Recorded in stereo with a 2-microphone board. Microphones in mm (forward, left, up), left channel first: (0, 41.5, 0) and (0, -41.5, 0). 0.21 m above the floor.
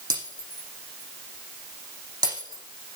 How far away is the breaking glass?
About 6.5 m.